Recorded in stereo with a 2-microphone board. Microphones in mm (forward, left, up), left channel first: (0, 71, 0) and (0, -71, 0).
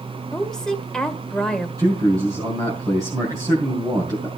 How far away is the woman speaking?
About 1.8 m.